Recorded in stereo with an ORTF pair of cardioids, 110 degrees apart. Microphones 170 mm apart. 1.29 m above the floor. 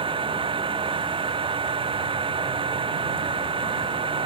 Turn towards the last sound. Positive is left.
turn(degrees=-30)